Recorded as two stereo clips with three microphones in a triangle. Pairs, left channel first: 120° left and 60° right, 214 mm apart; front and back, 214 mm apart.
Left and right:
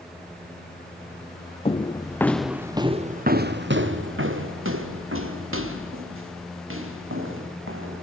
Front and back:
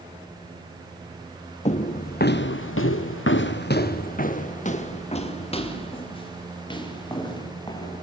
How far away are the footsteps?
About 1.5 m.